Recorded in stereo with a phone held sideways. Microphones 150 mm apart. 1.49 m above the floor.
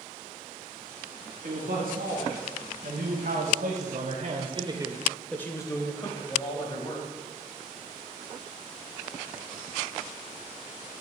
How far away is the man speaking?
About 2 m.